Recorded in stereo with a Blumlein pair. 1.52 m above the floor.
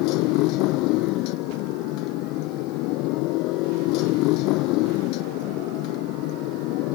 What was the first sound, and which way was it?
A motorcycle, 40° left.